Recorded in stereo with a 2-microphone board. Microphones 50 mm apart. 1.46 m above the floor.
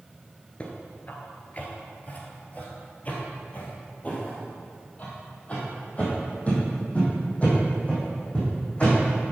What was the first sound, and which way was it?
Footsteps, 30° left (ahead or behind).